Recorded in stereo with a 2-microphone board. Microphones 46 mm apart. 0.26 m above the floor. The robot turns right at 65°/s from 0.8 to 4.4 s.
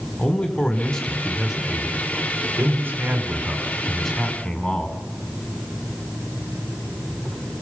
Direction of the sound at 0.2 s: 155° left.